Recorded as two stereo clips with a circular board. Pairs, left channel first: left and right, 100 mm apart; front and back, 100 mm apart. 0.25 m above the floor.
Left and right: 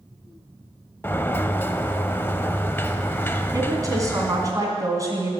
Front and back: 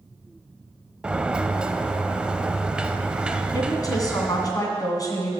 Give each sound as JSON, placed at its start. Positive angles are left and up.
{"t": 1.0, "sound": "a sliding door", "azimuth_deg": 115, "distance_m": 0.6}
{"t": 3.5, "sound": "a woman speaking", "azimuth_deg": -45, "distance_m": 2.0}